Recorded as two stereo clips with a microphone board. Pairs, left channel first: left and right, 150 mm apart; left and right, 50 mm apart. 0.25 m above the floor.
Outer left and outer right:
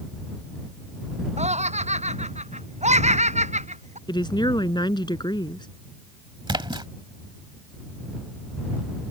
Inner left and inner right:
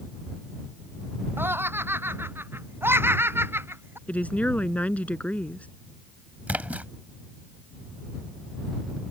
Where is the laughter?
50° right (ahead or behind).